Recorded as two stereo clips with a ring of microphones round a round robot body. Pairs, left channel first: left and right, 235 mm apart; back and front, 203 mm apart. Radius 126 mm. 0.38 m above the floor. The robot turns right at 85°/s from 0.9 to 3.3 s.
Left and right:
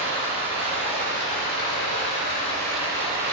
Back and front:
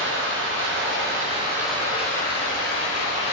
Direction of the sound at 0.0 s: 25° left.